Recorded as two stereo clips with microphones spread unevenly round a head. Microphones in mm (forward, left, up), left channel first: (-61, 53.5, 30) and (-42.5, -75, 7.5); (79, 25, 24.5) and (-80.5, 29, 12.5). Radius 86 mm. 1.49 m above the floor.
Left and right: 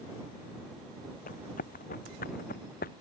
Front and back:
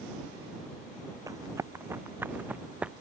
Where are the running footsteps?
110° left; by 2.9 s 95° left.